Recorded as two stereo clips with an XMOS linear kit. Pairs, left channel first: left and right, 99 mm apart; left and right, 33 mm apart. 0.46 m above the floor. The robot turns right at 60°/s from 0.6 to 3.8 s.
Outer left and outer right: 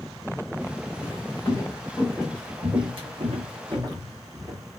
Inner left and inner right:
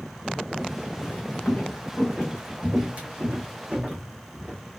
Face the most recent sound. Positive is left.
turn(degrees=-30)  # may be behind; listen again after turning